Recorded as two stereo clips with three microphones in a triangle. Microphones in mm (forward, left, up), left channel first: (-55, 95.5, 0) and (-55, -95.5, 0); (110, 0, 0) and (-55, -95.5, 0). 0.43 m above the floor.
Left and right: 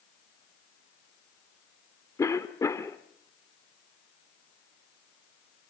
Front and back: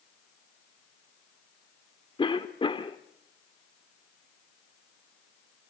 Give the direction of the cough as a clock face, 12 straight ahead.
11 o'clock.